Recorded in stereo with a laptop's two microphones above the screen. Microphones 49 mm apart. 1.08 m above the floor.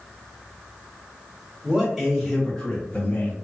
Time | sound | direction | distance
1.6 | a man speaking | 25° right (ahead or behind) | 1.7 m